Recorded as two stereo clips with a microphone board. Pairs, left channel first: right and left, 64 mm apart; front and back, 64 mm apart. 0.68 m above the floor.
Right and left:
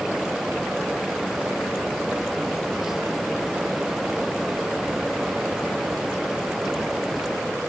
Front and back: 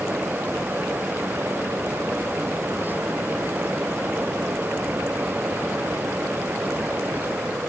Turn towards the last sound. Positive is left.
No sound to turn to.